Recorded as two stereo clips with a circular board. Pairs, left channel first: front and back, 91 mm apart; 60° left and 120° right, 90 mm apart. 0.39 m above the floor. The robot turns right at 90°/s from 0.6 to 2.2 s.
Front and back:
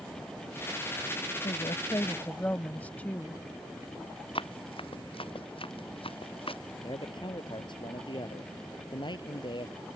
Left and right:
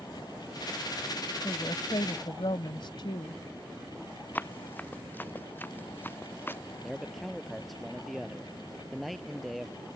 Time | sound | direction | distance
1.4 | a woman speaking | 5° left | ?
4.3 | running footsteps | 10° right | ?
6.8 | a man speaking | 30° right | ?